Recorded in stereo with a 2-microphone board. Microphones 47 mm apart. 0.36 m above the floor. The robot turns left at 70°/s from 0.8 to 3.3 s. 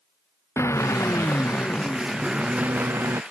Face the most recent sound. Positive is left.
turn(degrees=-80)